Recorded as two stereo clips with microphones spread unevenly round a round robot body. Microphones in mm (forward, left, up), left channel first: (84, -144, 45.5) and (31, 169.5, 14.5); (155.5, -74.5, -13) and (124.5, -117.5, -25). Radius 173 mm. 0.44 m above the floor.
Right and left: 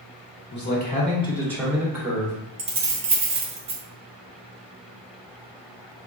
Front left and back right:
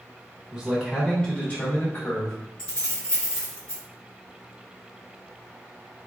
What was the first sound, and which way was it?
A man speaking, 100° right.